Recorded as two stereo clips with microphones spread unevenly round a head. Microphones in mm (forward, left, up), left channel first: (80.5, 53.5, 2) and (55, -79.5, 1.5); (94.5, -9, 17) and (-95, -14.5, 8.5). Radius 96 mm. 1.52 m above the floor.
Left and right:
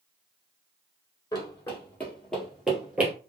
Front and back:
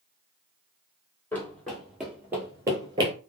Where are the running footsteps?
65° left, 1.6 m; by 3.1 s 165° right, 1.6 m.